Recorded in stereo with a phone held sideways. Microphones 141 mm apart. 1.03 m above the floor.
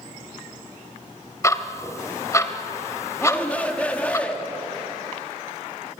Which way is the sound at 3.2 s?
10° left (ahead or behind).